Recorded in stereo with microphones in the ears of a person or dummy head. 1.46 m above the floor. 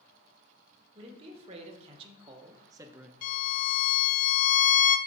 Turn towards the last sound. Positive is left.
turn(degrees=45)  # may be behind; listen again after turning